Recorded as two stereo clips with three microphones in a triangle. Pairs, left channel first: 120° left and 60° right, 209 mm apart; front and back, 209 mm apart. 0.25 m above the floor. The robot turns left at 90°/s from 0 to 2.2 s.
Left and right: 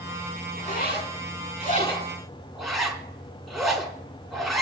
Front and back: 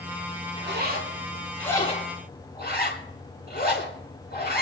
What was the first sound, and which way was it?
A zipper, 175° left.